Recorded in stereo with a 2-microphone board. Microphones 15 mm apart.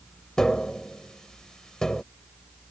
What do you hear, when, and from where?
0.4 s tapping: 55° left (ahead or behind)